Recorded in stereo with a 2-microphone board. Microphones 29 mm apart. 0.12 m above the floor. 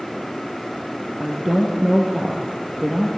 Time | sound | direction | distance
1.2 | a woman speaking | 15° right (ahead or behind) | 3 m